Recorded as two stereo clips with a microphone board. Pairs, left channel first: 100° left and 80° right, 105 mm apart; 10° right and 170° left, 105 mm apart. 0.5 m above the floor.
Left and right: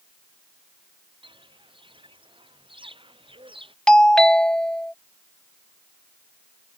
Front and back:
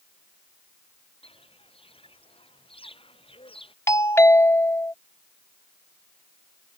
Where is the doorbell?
25° left.